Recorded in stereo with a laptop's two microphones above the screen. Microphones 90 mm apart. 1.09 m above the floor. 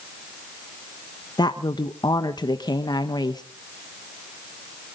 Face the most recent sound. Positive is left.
turn(degrees=50)  # may be behind; listen again after turning